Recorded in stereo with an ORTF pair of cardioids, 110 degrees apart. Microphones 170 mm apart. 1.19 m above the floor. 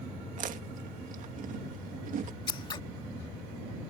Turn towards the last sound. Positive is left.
turn(degrees=30)